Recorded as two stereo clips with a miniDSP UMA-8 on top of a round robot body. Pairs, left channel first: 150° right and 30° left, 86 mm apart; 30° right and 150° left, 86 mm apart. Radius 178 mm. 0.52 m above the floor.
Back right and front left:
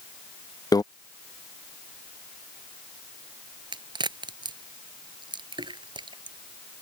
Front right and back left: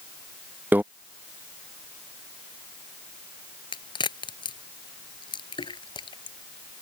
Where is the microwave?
150° right.